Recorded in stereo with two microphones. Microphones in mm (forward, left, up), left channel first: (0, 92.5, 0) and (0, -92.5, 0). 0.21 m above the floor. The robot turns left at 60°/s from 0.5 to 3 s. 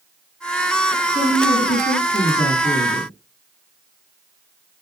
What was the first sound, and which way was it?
A woman speaking, 120° left.